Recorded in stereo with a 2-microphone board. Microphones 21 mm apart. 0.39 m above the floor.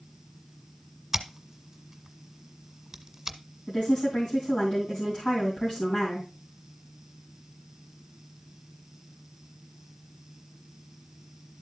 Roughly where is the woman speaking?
Left.